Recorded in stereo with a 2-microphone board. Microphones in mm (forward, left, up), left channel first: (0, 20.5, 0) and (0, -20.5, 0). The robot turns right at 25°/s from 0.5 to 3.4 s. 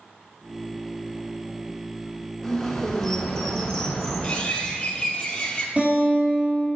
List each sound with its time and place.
2.4 s a bird: 10° left (ahead or behind), 1.6 m; by 4.4 s 15° left (ahead or behind), 1.6 m
4.2 s a bird: 30° left (ahead or behind), 1.1 m
5.8 s a guitar: 30° right (ahead or behind), 2.5 m